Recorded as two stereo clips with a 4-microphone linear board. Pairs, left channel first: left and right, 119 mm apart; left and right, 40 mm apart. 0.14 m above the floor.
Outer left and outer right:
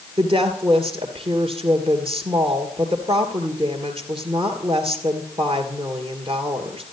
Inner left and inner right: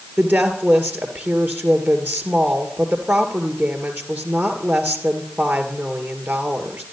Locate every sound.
0.2 s a woman speaking: 45° right (ahead or behind), 2 m